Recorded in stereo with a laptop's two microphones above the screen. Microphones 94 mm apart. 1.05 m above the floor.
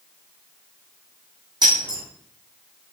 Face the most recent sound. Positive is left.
turn(degrees=-50)  # may be behind; listen again after turning